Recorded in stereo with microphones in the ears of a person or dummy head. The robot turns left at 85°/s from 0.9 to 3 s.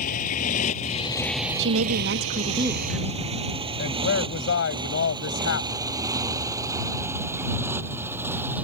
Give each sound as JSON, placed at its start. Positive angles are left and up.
{"t": 0.0, "sound": "a motorcycle", "side_deg": 50}
{"t": 1.6, "sound": "a woman speaking", "azimuth_deg": -70}
{"t": 3.8, "sound": "a woman speaking", "side_deg": 65}